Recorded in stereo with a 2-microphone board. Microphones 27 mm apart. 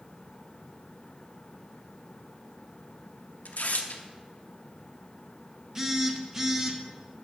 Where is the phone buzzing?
15° right (ahead or behind), 0.8 m.